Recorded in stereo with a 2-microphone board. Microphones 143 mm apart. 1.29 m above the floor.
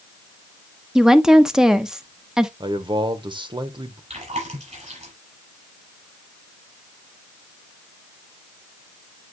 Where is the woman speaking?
5° right (ahead or behind), 0.9 m.